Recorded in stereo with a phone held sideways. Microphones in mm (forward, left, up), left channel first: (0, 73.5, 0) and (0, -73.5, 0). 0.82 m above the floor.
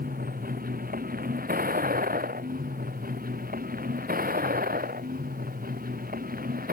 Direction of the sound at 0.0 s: 80° right.